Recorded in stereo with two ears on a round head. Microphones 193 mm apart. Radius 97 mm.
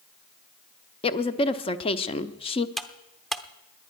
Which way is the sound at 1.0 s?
25° left (ahead or behind).